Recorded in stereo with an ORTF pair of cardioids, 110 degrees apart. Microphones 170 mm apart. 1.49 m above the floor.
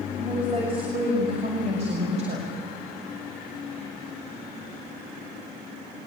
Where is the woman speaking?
30° right, 7.5 m; by 2.5 s 45° right, 5.5 m.